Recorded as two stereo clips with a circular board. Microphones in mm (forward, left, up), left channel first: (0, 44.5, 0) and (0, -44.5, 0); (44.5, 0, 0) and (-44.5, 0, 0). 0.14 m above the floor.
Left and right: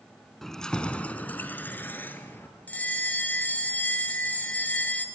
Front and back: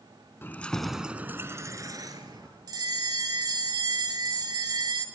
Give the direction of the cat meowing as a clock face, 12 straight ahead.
No cat meowing in this recording.